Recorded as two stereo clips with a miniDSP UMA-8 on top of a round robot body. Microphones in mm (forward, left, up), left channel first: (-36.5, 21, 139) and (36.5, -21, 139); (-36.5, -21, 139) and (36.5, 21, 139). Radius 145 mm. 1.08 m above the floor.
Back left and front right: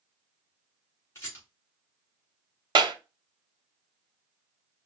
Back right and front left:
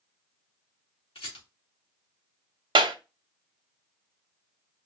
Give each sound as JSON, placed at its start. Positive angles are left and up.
{"t": 1.1, "sound": "a rattle", "azimuth_deg": -155, "distance_m": 3.5}
{"t": 2.8, "sound": "a clap", "azimuth_deg": 5, "distance_m": 1.0}